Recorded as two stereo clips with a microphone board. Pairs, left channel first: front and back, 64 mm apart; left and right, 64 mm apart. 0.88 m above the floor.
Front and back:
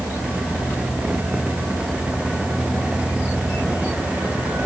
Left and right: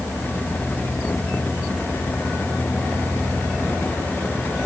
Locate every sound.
Only background noise.